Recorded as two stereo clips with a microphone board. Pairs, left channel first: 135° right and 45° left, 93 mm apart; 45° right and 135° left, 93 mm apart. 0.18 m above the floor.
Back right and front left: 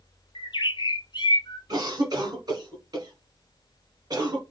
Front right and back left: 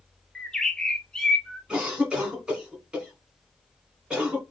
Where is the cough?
60° left, 1.3 m.